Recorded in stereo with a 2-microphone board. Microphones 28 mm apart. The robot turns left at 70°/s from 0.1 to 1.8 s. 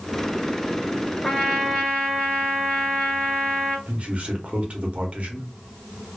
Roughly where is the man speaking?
Right.